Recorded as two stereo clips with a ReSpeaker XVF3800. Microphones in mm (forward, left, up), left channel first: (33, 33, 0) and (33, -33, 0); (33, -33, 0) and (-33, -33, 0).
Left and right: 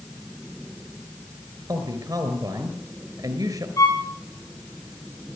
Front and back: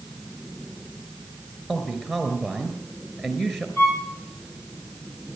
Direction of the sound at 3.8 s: 60° left.